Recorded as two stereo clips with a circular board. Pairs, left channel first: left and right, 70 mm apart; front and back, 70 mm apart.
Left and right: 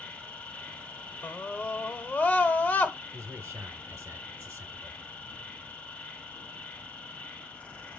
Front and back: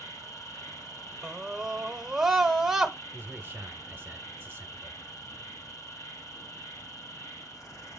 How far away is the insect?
About 1.7 m.